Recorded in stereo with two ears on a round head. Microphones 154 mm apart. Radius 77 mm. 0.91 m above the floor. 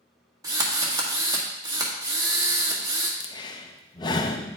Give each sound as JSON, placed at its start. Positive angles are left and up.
{"t": 0.4, "sound": "a drill", "side_deg": -20, "distance_m": 1.7}
{"t": 3.2, "sound": "breathing", "side_deg": 25, "distance_m": 0.6}